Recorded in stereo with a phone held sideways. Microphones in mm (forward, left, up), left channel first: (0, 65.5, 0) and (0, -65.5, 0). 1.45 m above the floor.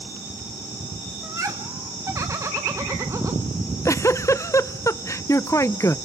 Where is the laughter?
25° right (ahead or behind), 1.2 m.